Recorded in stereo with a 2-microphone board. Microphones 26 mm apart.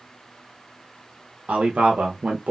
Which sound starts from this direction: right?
A man speaking, at 1.5 s.